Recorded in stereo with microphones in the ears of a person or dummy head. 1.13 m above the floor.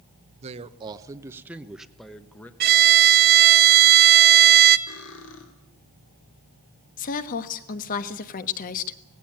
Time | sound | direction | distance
0.4 | a man speaking | 40° right (ahead or behind) | 1.0 m
2.6 | a violin | 50° right (ahead or behind) | 0.8 m
4.9 | cutlery clinking | 70° left (ahead or behind) | 3 m
7.0 | a woman speaking | 45° left (ahead or behind) | 1.3 m